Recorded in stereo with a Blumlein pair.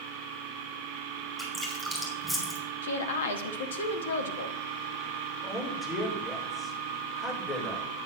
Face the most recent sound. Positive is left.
turn(degrees=15)